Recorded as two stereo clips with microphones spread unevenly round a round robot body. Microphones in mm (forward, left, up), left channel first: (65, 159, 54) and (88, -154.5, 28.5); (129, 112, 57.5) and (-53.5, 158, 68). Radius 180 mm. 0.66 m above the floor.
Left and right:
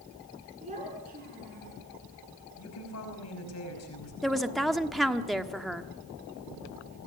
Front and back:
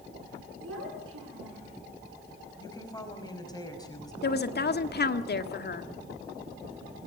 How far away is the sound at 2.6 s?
About 5.5 m.